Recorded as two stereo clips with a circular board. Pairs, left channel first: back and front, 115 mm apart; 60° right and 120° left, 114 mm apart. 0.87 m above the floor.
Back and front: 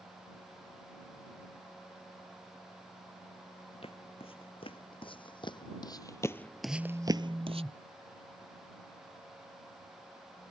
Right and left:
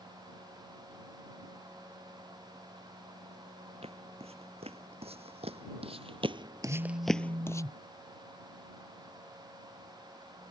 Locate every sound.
3.8 s footsteps: 145° left; by 7.6 s 5° right
6.6 s a phone buzzing: 85° left